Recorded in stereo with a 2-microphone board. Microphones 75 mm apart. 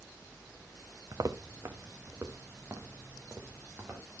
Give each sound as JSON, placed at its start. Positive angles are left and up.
{"t": 1.1, "sound": "footsteps", "side_deg": -50, "distance_m": 1.4}